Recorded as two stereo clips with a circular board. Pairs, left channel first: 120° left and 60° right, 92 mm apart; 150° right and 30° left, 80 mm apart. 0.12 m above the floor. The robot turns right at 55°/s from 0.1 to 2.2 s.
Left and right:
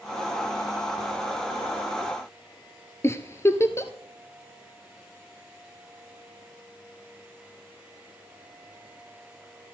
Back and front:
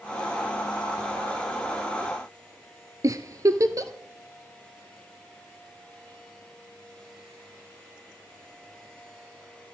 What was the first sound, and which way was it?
A giggle, 65° left.